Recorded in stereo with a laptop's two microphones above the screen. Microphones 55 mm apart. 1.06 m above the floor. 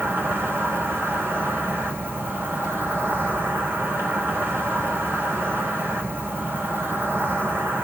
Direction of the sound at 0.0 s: 40° right (ahead or behind).